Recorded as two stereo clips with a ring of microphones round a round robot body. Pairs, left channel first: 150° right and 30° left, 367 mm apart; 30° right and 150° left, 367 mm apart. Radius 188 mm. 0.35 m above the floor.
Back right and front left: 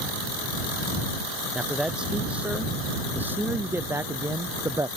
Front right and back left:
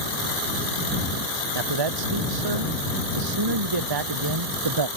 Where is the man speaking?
120° left; by 4.9 s 110° left.